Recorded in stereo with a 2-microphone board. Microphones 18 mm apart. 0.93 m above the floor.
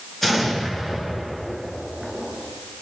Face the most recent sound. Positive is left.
turn(degrees=10)  # may be behind; listen again after turning